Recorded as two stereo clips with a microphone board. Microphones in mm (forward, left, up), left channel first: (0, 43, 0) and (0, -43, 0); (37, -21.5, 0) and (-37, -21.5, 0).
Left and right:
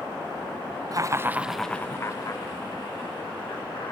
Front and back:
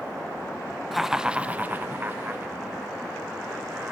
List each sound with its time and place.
0.9 s laughter: 95° right, 0.6 m; by 3.9 s 115° left, 1.8 m